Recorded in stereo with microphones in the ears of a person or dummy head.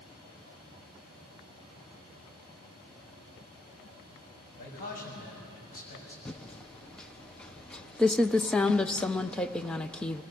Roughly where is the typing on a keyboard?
Centre.